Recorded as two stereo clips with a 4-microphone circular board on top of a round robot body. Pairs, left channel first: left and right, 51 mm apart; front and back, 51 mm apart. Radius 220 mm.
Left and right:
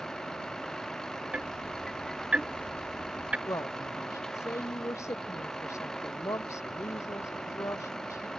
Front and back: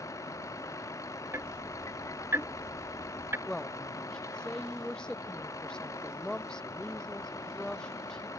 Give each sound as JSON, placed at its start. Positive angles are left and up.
{"t": 0.0, "sound": "a vehicle", "azimuth_deg": 10}
{"t": 1.3, "sound": "ticking", "azimuth_deg": -150}
{"t": 3.5, "sound": "a woman speaking", "azimuth_deg": 75}